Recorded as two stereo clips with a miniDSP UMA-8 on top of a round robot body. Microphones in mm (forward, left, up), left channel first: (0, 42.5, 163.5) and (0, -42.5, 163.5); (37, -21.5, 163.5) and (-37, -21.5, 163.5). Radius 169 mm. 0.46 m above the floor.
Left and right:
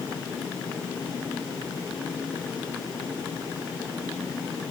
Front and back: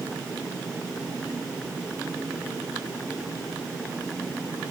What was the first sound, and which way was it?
Only background noise.